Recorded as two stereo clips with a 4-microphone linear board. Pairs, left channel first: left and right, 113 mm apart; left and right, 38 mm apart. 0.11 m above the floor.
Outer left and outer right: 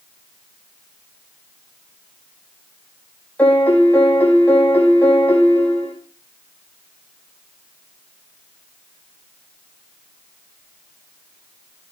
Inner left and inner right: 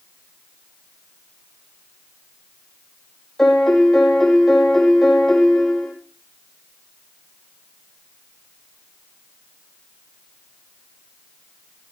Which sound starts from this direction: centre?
A piano, at 3.4 s.